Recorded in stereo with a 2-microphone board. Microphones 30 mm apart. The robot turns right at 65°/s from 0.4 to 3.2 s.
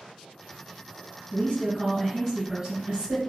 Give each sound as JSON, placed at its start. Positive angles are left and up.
{"t": 1.3, "sound": "a woman speaking", "azimuth_deg": 120, "distance_m": 1.5}